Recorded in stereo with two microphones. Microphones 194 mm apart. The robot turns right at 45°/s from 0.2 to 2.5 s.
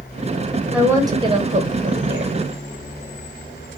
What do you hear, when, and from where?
0.7 s a woman speaking: 175° right, 1.1 m; by 2.4 s 105° right, 1.1 m